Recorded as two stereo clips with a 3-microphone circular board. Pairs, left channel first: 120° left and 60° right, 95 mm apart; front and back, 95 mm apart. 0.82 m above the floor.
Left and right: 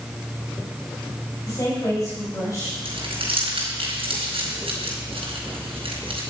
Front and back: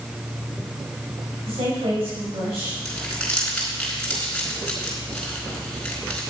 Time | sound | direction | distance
1.5 | a woman speaking | 175° left | 5 m
2.9 | crumpling | 80° right | 4.5 m